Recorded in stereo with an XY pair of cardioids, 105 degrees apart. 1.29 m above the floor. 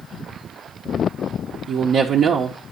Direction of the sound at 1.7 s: 60° right.